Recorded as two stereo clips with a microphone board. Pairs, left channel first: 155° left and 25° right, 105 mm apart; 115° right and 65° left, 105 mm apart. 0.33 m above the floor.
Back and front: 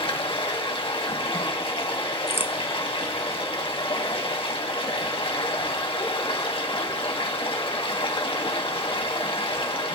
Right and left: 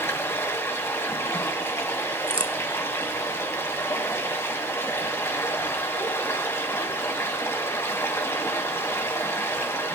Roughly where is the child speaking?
I don't hear a child speaking.